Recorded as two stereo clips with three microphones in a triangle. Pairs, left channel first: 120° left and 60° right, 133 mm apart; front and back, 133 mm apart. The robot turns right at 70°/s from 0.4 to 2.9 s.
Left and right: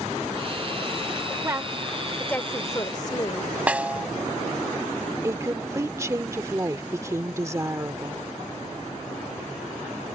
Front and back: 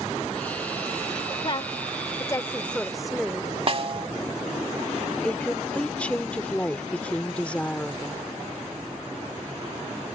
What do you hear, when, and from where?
1.4 s a woman speaking: 10° right; by 3.5 s 90° left
3.7 s a snare drum: 140° right
5.2 s a woman speaking: 65° right